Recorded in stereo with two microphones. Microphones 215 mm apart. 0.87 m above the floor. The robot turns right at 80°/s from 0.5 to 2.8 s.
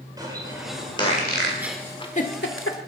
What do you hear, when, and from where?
0.2 s a bird: 20° right (ahead or behind), 3.5 m; by 1.5 s 60° left (ahead or behind), 3.5 m
1.6 s a giggle: 10° right (ahead or behind), 1.5 m; by 2.8 s 85° left, 1.5 m